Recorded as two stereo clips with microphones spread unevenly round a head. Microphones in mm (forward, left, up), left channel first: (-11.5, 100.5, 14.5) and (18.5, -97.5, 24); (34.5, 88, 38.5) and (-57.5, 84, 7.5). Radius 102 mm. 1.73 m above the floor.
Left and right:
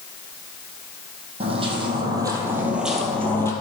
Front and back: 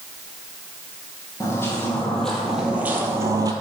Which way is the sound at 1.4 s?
30° right.